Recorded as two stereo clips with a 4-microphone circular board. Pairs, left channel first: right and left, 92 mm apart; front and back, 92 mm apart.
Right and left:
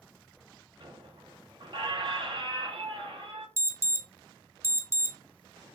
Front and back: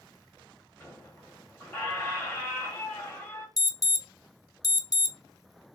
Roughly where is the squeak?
Ahead left.